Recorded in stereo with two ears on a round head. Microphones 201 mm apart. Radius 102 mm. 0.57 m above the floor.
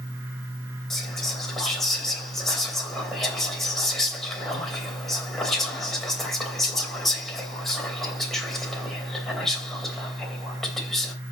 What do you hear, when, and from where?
0.9 s whispering: centre (ahead or behind), 2.5 m